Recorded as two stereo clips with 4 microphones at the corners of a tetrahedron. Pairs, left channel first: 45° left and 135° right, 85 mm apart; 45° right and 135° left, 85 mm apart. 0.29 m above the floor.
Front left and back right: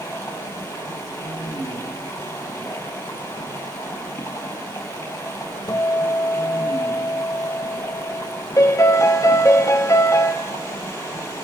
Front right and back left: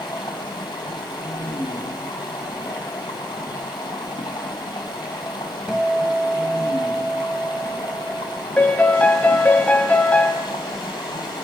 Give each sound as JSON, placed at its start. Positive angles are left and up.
{"t": 0.0, "sound": "running water", "azimuth_deg": -10, "distance_m": 5.0}
{"t": 5.7, "sound": "a guitar", "azimuth_deg": 60, "distance_m": 0.8}
{"t": 8.6, "sound": "a piano", "azimuth_deg": 20, "distance_m": 1.6}